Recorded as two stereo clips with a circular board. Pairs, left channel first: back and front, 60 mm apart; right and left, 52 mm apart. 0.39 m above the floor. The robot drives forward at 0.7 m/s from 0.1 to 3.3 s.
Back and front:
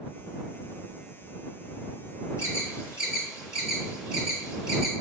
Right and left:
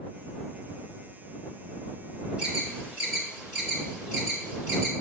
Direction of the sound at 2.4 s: 155° left.